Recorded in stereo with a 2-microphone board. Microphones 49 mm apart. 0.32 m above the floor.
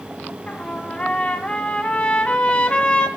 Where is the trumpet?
25° left (ahead or behind), 2 m.